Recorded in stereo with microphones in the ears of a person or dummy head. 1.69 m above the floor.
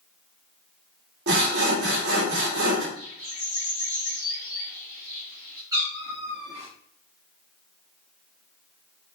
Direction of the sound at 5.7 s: 15° right (ahead or behind).